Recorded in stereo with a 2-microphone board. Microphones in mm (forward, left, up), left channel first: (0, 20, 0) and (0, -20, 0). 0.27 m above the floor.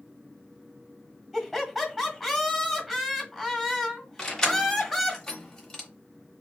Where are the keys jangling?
10° left (ahead or behind), 0.9 m.